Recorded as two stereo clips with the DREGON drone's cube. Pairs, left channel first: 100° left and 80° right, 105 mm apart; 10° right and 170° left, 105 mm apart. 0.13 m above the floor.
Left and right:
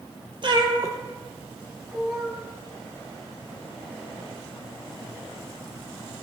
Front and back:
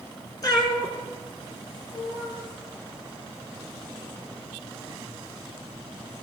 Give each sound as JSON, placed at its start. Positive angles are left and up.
{"t": 0.4, "sound": "a cat meowing", "azimuth_deg": -55, "distance_m": 1.3}